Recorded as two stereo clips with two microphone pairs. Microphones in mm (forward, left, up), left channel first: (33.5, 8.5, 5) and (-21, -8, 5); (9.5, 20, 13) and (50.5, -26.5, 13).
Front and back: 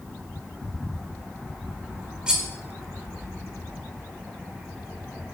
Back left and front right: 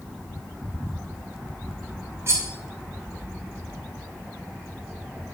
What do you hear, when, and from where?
2.3 s cutlery clinking: 85° right, 2.5 m